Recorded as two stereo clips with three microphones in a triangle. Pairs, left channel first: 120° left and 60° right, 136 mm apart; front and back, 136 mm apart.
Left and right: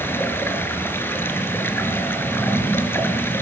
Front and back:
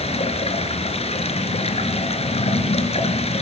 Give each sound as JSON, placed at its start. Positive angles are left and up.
{"t": 0.0, "sound": "running water", "azimuth_deg": 45, "distance_m": 3.5}